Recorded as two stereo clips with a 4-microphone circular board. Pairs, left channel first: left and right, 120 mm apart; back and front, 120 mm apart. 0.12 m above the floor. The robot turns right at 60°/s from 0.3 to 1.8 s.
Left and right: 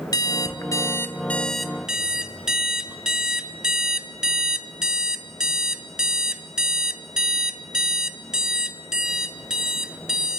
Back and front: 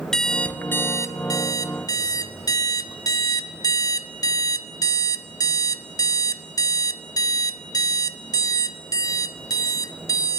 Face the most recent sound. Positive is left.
turn(degrees=-170)